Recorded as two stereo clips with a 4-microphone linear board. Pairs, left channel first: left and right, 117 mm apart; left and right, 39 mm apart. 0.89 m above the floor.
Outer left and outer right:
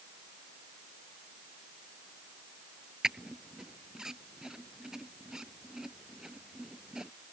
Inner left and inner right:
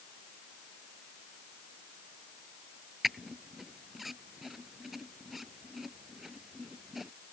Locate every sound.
3.0 s a squeak: 5° right (ahead or behind)